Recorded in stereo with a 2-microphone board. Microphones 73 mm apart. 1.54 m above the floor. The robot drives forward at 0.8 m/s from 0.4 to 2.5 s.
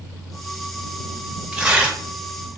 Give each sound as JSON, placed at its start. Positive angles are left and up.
{"t": 1.5, "sound": "tearing paper", "side_deg": -10, "distance_m": 1.6}